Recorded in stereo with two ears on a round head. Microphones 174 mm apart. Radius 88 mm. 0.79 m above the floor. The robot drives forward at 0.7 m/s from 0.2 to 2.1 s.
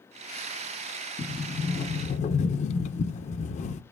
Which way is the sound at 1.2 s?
20° left (ahead or behind).